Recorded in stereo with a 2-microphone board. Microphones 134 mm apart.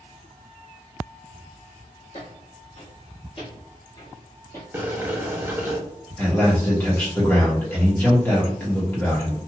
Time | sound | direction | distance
2.1 | footsteps | 55° left (ahead or behind) | 1.8 m
4.7 | boiling | 15° right (ahead or behind) | 0.7 m
6.2 | a man speaking | 15° left (ahead or behind) | 1.3 m